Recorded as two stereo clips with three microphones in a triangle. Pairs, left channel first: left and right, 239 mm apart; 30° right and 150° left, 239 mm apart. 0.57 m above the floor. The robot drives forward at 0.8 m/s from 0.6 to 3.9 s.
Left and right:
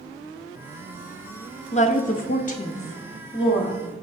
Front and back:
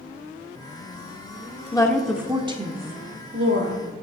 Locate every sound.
1.7 s a woman speaking: 35° left, 0.9 m; by 3.8 s 160° left, 1.4 m